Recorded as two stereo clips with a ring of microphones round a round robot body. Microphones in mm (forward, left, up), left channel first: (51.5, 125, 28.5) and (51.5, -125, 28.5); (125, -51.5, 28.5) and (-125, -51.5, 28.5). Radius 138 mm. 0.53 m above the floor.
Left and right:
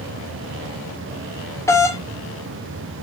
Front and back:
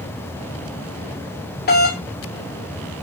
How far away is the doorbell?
About 1.9 m.